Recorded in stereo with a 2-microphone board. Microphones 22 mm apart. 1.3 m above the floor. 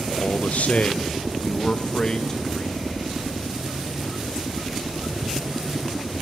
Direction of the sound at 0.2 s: 75° left (ahead or behind).